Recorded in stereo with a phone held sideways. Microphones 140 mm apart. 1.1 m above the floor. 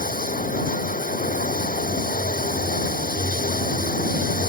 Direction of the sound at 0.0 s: 80° left.